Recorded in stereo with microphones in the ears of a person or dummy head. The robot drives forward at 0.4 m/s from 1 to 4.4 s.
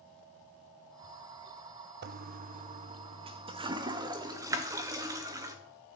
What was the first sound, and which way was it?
A toilet flushing, 55° right (ahead or behind).